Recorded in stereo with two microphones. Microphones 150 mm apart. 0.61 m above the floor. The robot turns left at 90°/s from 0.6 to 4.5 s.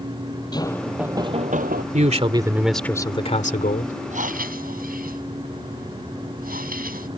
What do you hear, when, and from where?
0.5 s knocking: 25° left; by 1.8 s 85° right
1.9 s a man speaking: 110° right; by 3.9 s 70° left
4.1 s breathing: 55° right; by 7.1 s 90° right